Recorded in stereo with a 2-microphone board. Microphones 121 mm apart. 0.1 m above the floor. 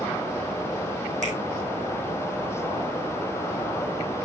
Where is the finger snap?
75° right (ahead or behind), 5 m.